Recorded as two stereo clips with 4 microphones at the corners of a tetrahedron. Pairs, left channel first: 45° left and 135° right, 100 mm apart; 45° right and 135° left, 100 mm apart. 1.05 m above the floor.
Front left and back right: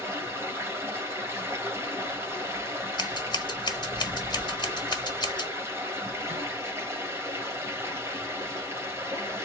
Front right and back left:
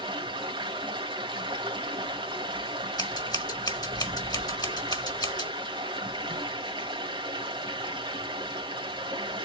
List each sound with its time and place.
0.0 s running water: 165° left, 1.9 m
3.0 s scissors: straight ahead, 1.3 m